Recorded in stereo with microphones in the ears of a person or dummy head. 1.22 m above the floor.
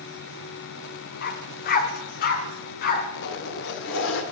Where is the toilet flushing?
65° left (ahead or behind), 1.6 m.